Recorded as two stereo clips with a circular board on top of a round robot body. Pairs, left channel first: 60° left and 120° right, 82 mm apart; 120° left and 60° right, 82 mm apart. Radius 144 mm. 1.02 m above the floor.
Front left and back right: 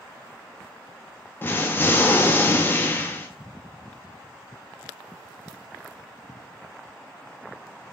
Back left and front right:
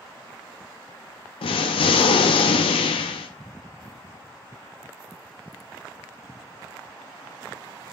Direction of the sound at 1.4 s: 125° left.